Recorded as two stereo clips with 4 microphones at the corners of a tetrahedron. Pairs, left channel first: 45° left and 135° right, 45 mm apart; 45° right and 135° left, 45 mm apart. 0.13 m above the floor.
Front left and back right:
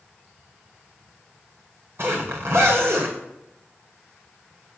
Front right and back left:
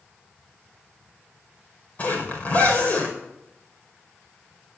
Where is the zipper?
100° right, 5.5 m.